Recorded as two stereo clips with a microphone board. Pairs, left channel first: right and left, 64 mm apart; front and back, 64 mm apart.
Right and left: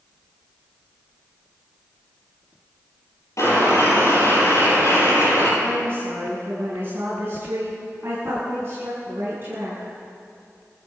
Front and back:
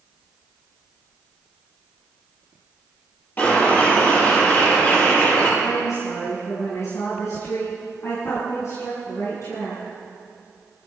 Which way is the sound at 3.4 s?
55° right.